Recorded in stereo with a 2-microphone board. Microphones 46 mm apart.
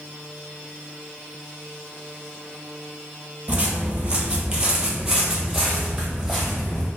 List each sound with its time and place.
3.5 s footsteps: 30° right (ahead or behind), 1.0 m; by 6.9 s centre (ahead or behind), 1.8 m